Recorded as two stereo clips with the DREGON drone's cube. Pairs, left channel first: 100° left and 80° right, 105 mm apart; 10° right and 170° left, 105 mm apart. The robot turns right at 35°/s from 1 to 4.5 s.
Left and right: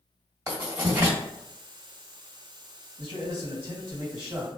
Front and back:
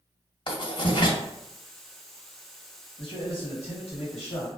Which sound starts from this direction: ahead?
Writing, at 0.5 s.